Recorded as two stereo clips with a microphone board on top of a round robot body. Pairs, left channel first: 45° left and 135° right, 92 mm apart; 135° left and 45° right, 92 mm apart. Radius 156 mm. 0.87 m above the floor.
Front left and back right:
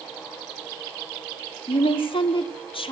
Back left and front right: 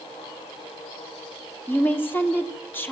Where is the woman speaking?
65° left, 1.9 m.